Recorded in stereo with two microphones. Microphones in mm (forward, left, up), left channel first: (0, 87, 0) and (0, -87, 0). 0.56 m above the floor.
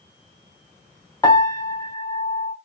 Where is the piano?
20° left (ahead or behind), 0.6 m.